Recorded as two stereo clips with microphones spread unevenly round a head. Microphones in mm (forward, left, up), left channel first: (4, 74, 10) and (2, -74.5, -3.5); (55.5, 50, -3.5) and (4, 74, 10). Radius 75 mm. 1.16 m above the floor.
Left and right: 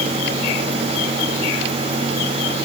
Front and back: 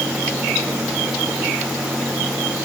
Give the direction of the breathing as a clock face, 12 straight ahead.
I don't hear breathing.